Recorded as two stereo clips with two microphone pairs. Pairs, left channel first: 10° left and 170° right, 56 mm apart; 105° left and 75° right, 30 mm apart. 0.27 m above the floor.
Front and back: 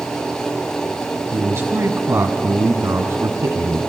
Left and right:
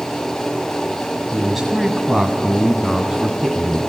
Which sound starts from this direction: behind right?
A man speaking, at 1.3 s.